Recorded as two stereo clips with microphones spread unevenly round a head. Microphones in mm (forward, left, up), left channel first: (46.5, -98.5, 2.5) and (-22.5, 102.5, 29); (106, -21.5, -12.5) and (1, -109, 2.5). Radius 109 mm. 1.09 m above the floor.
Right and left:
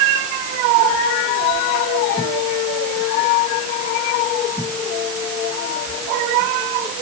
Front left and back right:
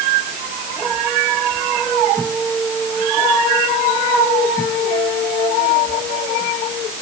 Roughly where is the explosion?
No explosion in this recording.